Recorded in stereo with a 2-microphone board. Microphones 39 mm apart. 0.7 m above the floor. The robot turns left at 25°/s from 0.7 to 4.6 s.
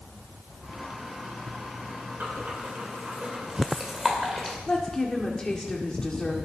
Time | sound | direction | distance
2.2 | breathing | 50° right (ahead or behind) | 2.5 m
4.7 | a woman speaking | 20° left (ahead or behind) | 1.8 m